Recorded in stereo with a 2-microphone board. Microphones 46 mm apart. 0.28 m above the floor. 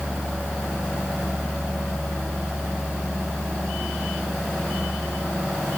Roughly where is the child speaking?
No child speaking in this recording.